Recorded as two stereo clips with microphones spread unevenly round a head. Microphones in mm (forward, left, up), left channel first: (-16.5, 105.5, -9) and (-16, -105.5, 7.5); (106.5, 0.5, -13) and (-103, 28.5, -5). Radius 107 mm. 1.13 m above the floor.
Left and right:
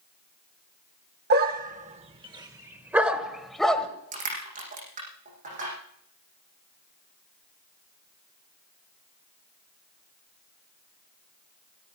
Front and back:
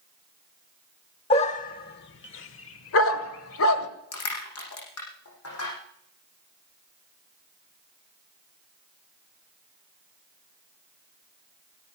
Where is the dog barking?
70° right, 1.1 m; by 3.9 s straight ahead, 1.9 m.